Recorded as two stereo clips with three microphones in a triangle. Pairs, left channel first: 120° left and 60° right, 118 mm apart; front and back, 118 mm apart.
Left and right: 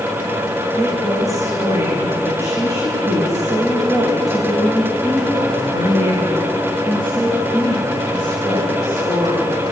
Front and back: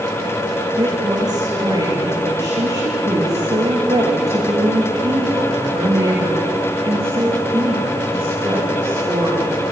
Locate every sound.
0.8 s a woman speaking: 125° right, 9 m; by 9.6 s 115° right, 15.5 m